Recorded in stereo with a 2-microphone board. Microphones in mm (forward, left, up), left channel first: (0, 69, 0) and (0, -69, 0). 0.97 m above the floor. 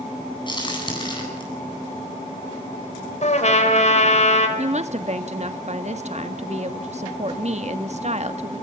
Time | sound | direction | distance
0.5 | a crack | 35° left (ahead or behind) | 9.5 m
3.2 | a trumpet | 55° left (ahead or behind) | 4 m
4.6 | a woman speaking | 55° right (ahead or behind) | 1.6 m